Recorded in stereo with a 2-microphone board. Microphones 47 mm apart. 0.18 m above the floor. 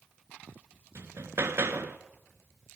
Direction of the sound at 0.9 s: 60° right (ahead or behind).